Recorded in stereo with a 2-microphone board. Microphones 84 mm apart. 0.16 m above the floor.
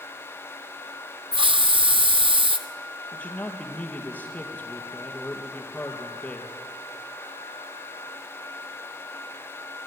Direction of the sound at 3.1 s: 15° left (ahead or behind).